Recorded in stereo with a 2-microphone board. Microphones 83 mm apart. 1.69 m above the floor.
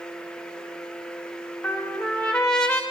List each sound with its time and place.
1.6 s a trumpet: 10° left (ahead or behind), 1.5 m